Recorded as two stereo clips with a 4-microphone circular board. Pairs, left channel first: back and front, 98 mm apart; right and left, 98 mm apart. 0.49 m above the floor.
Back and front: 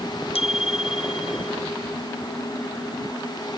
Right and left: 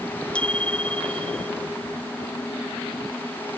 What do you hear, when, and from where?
0.3 s a bicycle bell: 170° right